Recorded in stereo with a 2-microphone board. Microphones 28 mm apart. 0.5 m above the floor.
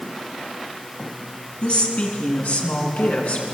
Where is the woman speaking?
60° left (ahead or behind), 5.5 m; by 3.4 s 75° left (ahead or behind), 7 m.